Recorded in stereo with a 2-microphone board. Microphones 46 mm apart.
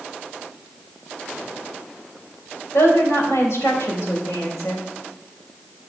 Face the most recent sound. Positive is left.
turn(degrees=75)  # may be behind; listen again after turning